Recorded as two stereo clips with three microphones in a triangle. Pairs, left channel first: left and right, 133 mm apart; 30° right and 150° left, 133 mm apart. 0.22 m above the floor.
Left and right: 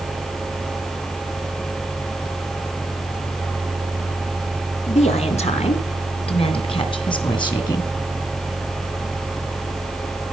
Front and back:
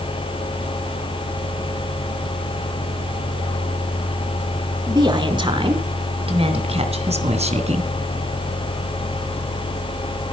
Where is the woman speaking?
100° left, 3 m; by 7.9 s 140° left, 2.5 m.